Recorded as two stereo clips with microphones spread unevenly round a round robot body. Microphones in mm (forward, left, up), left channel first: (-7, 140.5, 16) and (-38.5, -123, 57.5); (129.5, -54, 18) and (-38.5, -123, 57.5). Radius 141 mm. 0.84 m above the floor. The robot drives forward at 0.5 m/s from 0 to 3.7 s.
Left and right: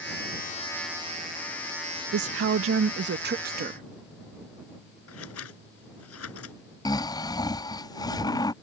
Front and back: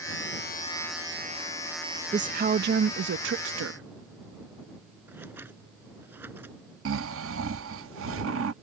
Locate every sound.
2.1 s a woman speaking: 100° right; by 3.9 s 160° right
5.1 s scissors: 120° left
6.8 s snoring: 160° left